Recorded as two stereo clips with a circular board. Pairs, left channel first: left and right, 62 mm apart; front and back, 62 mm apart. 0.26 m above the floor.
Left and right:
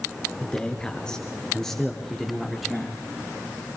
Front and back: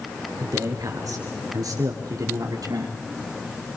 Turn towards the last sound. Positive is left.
turn(degrees=180)